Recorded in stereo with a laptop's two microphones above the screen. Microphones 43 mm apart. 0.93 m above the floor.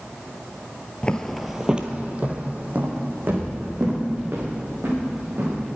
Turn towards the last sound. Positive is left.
turn(degrees=-50)  # may be behind; listen again after turning